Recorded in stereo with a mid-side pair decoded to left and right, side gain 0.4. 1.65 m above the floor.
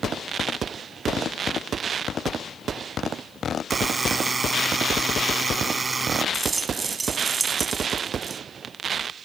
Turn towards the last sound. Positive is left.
turn(degrees=-35)